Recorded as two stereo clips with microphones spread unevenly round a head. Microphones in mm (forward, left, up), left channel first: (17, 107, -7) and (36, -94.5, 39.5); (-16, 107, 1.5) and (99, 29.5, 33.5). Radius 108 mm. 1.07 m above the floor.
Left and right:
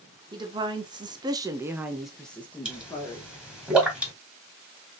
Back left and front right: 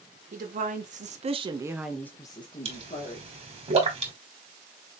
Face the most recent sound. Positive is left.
turn(degrees=-5)